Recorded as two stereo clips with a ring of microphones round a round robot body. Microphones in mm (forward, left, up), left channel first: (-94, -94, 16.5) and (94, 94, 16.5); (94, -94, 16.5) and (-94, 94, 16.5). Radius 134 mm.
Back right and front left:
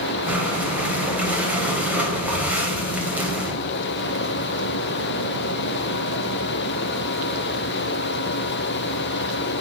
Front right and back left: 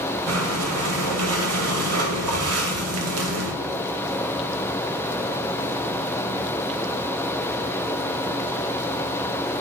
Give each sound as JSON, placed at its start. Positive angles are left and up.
{"t": 0.3, "sound": "breathing", "azimuth_deg": 130, "distance_m": 2.5}